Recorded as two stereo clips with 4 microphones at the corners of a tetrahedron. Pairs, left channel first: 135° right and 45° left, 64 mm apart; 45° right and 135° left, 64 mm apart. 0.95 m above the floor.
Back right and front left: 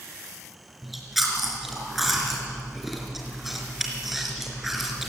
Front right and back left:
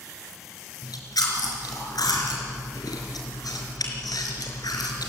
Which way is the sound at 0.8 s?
45° right.